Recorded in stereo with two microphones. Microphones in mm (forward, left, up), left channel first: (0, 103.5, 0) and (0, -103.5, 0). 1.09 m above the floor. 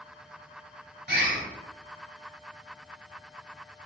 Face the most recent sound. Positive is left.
turn(degrees=-60)  # may be behind; listen again after turning